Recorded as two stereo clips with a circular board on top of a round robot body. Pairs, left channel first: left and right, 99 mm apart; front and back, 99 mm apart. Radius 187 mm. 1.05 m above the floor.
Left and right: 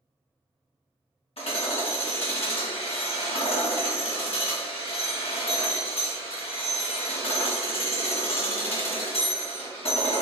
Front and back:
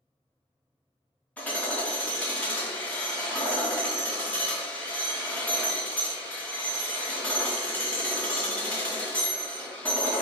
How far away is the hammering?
About 1.4 m.